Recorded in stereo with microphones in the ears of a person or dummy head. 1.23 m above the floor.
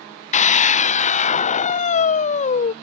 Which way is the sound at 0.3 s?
40° left (ahead or behind).